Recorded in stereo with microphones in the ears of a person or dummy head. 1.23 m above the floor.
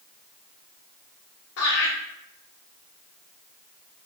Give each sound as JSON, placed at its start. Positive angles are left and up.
{"t": 1.6, "sound": "laughter", "side_deg": 75, "distance_m": 0.7}